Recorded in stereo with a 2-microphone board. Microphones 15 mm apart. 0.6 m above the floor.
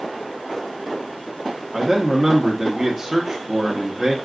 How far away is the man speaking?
About 0.9 m.